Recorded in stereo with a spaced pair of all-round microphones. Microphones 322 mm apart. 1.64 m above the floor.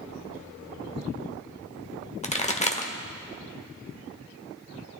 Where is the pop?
20° left (ahead or behind), 0.8 m.